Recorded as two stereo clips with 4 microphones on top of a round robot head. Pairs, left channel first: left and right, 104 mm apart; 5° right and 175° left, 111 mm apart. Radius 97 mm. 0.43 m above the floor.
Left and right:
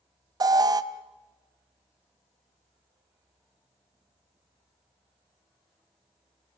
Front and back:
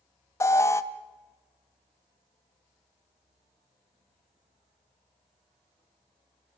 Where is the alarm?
60° right, 1.0 m.